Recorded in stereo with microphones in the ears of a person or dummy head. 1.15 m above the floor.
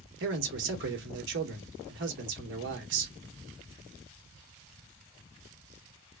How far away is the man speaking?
About 1.2 m.